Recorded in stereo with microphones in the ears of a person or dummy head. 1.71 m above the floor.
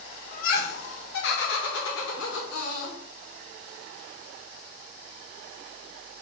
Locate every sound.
0.3 s laughter: 55° left (ahead or behind), 1.3 m; by 3.0 s 70° left (ahead or behind), 2.5 m